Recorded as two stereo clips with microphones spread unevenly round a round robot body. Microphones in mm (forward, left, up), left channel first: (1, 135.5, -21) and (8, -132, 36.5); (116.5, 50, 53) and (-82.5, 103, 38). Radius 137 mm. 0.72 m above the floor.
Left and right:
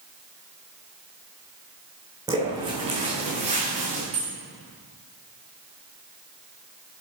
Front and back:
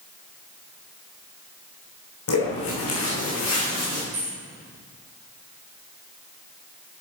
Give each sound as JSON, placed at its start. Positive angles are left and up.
{"t": 2.3, "sound": "footsteps", "azimuth_deg": -15, "distance_m": 3.0}
{"t": 4.1, "sound": "keys jangling", "azimuth_deg": -130, "distance_m": 2.0}